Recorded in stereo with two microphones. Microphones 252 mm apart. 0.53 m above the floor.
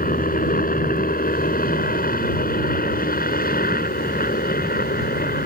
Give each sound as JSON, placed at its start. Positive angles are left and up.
{"t": 0.0, "sound": "a helicopter", "side_deg": 35}